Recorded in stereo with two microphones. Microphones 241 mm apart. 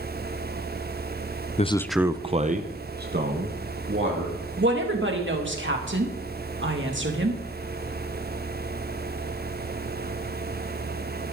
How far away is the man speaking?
About 0.6 m.